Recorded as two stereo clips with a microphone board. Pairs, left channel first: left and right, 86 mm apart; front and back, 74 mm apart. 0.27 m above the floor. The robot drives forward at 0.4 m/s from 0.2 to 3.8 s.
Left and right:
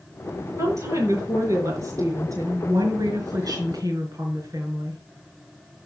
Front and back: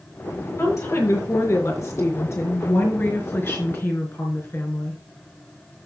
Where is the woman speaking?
40° right, 5 m; by 5.0 s 55° right, 4 m.